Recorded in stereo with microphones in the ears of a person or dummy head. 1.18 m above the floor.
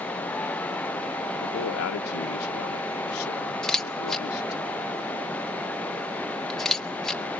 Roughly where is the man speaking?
Left.